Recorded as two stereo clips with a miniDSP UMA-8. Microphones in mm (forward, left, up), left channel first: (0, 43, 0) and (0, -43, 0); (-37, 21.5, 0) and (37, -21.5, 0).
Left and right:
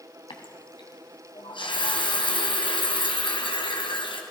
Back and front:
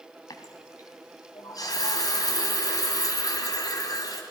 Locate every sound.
0.3 s a running tap: 105° left, 2.5 m